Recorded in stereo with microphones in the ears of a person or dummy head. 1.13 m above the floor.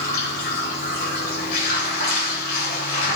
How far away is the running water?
About 5 m.